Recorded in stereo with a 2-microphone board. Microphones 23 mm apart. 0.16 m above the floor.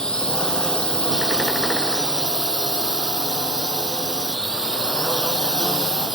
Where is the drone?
35° left (ahead or behind).